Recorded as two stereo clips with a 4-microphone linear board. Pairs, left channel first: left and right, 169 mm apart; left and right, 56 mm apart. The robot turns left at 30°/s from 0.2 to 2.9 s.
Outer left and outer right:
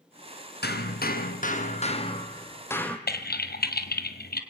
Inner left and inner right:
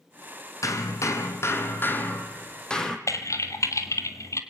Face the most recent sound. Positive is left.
turn(degrees=70)  # may be behind; listen again after turning